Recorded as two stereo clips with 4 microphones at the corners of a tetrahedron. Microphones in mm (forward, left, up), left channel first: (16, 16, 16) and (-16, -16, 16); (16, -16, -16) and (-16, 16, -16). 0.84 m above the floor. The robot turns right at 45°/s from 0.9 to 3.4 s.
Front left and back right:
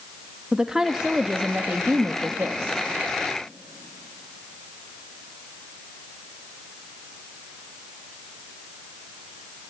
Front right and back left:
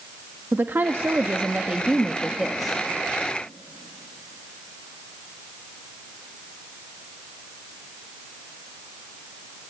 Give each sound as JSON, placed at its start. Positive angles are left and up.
{"t": 0.5, "sound": "a woman speaking", "azimuth_deg": 150, "distance_m": 0.9}